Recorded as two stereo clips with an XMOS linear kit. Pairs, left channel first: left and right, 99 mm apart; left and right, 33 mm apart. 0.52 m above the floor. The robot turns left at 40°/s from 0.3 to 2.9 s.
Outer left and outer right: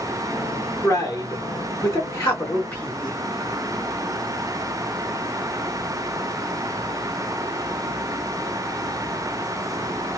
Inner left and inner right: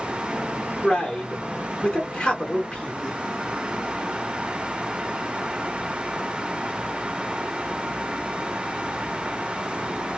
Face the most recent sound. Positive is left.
turn(degrees=15)  # may be behind; listen again after turning